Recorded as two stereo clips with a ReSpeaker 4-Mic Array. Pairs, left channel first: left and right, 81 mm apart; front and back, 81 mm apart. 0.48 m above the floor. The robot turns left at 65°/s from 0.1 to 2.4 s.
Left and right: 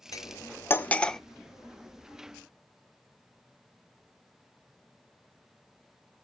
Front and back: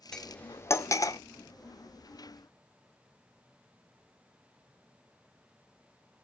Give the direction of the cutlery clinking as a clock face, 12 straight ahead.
9 o'clock.